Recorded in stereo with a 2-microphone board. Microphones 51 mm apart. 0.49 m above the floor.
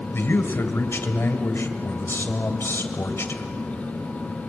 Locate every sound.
0.1 s a man speaking: 50° left (ahead or behind), 2.5 m